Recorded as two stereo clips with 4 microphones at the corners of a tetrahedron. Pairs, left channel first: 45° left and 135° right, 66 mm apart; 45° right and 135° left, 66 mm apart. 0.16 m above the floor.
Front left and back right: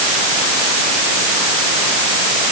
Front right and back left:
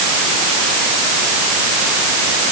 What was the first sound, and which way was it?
Only background noise.